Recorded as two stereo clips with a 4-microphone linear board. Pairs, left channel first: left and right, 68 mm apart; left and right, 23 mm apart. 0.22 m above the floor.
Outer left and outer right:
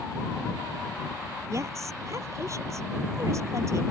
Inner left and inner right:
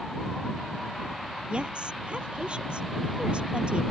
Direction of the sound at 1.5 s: 45° right (ahead or behind).